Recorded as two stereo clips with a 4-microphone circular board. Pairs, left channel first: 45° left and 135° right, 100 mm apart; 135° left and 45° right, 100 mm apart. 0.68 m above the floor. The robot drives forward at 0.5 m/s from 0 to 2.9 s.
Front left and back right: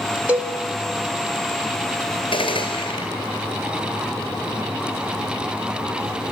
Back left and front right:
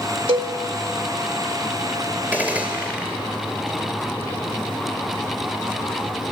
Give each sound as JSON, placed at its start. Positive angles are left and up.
{"t": 0.3, "sound": "a cowbell", "azimuth_deg": -60, "distance_m": 1.3}
{"t": 2.3, "sound": "a gunshot", "azimuth_deg": 30, "distance_m": 2.5}